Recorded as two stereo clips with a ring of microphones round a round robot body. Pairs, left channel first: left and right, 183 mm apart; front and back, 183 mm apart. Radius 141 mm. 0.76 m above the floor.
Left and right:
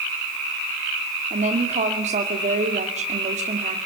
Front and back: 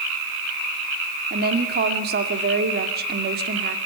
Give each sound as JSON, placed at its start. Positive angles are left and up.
{"t": 1.3, "sound": "a woman speaking", "azimuth_deg": -145, "distance_m": 2.0}